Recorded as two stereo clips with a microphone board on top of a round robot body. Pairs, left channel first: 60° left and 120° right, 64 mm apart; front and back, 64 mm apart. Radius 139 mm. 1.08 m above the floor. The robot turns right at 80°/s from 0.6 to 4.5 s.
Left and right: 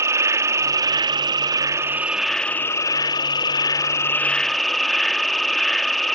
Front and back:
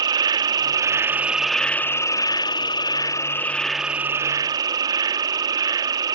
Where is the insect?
165° right; by 6.1 s 150° left.